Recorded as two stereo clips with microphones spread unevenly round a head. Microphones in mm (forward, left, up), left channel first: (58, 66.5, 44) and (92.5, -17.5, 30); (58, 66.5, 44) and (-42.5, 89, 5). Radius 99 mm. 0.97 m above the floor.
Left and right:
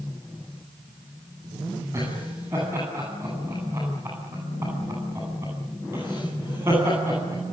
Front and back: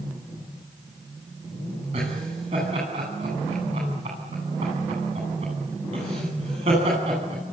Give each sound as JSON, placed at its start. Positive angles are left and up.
{"t": 1.9, "sound": "laughter", "azimuth_deg": -140, "distance_m": 10.0}